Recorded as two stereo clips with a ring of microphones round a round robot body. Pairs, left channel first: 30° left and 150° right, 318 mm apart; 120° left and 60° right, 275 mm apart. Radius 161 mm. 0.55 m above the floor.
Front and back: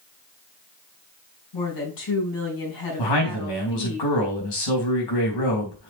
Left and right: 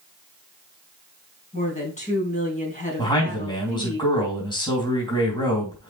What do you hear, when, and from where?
1.5 s a woman speaking: 55° left, 5 m
3.0 s a man speaking: 45° left, 3.5 m